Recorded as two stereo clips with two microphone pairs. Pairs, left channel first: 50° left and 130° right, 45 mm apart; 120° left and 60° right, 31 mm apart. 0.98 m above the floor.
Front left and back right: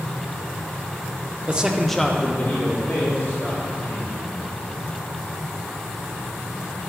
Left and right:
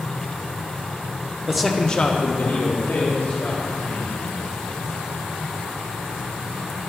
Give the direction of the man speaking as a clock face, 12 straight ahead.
4 o'clock.